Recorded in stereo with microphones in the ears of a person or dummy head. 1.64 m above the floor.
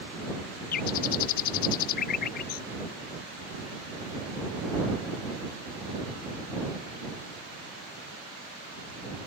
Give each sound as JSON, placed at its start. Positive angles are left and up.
{"t": 0.7, "sound": "a bird", "side_deg": 55}